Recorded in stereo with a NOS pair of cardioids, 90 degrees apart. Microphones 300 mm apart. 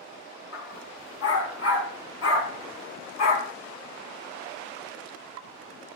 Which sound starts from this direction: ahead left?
A dog barking, at 0.5 s.